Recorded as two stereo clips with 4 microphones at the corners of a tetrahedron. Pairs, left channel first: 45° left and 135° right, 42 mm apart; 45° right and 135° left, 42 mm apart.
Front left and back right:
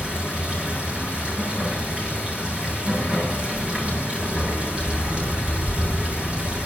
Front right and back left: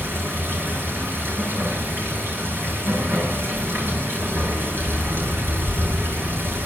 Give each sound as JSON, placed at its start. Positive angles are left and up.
{"t": 0.0, "sound": "running water", "azimuth_deg": 165, "distance_m": 7.5}